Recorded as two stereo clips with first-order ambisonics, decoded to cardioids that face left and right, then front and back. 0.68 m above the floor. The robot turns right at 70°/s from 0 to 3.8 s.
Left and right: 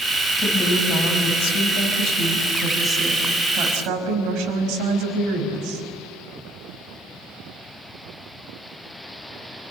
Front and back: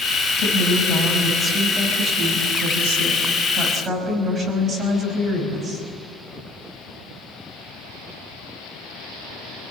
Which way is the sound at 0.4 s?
Straight ahead.